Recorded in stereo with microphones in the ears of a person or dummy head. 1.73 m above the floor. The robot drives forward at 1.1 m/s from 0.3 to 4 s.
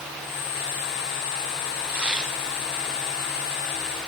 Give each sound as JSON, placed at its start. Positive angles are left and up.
{"t": 1.9, "sound": "tearing paper", "side_deg": -10, "distance_m": 0.9}